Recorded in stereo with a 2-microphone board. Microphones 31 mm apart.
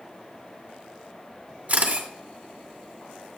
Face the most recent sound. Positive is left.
turn(degrees=-45)  # may be behind; listen again after turning